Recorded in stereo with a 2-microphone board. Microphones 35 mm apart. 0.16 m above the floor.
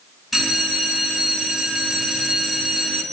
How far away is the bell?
About 1.9 m.